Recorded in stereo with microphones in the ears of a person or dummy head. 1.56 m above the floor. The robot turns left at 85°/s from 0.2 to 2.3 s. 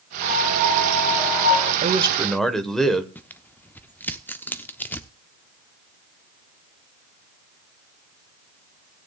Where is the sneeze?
I don't hear a sneeze.